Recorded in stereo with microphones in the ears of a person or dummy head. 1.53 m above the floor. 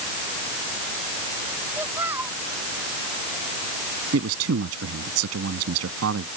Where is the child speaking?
10° right (ahead or behind).